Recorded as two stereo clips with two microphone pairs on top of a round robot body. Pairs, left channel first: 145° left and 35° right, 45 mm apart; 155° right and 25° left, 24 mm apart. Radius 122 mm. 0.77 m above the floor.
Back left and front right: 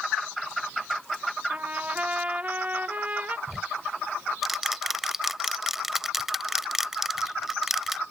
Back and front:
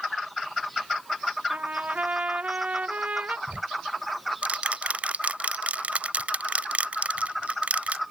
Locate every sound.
1.5 s a trumpet: 25° left
3.5 s ticking: 50° left